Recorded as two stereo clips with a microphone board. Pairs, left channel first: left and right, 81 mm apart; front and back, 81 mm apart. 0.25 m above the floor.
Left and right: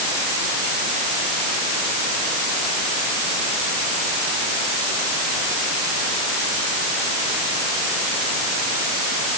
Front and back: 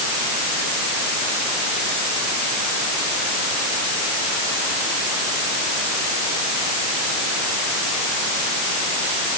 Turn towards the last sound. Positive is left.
No sound to turn to.